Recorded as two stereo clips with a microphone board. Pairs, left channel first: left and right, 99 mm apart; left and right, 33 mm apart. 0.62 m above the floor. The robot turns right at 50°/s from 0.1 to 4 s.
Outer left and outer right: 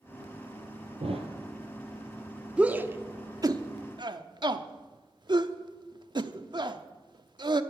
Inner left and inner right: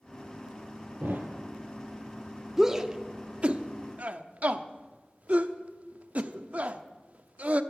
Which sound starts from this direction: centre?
A shout, at 2.6 s.